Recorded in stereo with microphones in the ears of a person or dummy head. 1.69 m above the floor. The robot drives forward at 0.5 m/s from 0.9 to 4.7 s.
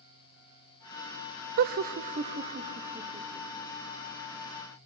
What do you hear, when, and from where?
1.6 s laughter: 55° right (ahead or behind), 0.5 m; by 3.7 s 20° right (ahead or behind), 1.4 m